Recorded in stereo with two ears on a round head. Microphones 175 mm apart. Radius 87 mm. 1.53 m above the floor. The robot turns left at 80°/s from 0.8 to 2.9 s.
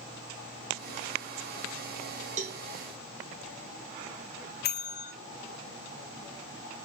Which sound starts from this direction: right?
A cowbell, at 2.4 s.